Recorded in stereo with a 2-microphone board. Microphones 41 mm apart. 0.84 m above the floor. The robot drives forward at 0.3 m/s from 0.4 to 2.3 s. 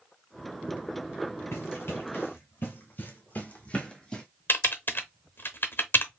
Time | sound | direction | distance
1.5 | running footsteps | 65° left (ahead or behind) | 2 m
4.5 | typing on a keyboard | 55° left (ahead or behind) | 0.8 m